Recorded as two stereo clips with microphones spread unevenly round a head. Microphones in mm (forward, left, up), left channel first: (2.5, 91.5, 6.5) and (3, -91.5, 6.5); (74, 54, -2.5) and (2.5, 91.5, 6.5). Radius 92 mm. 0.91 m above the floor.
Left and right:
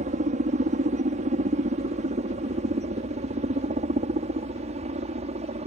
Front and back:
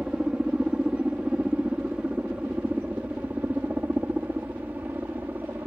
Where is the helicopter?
130° right; by 5.7 s 135° right.